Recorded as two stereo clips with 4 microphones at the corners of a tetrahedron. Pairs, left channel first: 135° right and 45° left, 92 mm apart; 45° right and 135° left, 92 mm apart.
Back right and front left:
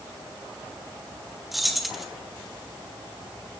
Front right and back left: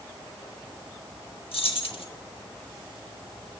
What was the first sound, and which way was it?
Keys jangling, 45° right.